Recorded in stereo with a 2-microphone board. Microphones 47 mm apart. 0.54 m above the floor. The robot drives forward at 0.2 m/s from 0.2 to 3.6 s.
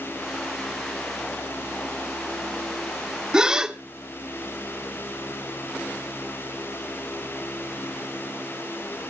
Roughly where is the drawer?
I don't hear a drawer.